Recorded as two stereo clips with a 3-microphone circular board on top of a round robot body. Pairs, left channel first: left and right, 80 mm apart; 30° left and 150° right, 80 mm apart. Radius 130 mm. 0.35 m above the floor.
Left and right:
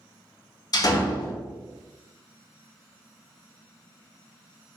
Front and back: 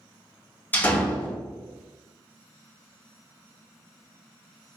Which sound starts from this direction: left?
A door slam, at 0.7 s.